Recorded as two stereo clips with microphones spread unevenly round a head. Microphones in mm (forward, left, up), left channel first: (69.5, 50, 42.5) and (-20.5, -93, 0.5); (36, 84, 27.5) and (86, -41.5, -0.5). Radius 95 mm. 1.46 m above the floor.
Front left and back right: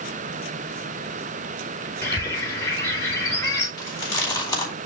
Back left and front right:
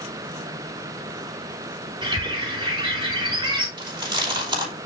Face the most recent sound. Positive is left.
turn(degrees=-10)